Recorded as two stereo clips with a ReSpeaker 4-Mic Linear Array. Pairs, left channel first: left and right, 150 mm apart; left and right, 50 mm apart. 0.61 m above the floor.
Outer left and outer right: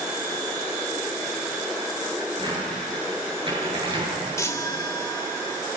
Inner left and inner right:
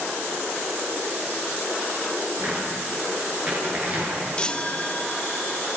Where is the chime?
20° left (ahead or behind), 1.3 m.